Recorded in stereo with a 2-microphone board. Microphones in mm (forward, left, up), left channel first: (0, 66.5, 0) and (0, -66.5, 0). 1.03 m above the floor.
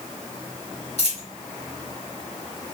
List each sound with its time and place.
1.0 s a dropped coin: 50° left (ahead or behind), 2 m